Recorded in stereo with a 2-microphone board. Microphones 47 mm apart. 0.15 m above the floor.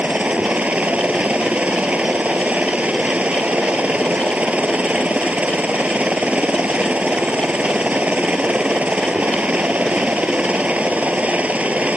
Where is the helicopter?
30° right (ahead or behind).